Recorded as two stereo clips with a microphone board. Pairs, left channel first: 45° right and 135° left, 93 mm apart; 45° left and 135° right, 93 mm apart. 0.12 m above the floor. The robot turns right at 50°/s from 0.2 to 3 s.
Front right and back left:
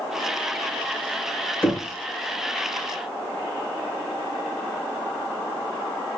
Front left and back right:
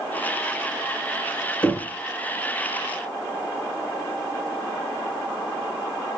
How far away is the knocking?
About 1.0 m.